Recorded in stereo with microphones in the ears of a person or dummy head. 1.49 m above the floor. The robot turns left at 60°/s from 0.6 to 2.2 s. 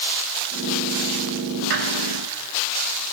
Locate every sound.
1.7 s a squeak: 65° right (ahead or behind), 6 m; by 1.9 s 50° right (ahead or behind), 6 m